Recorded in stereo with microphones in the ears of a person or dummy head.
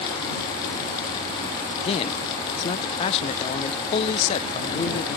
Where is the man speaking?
35° left (ahead or behind).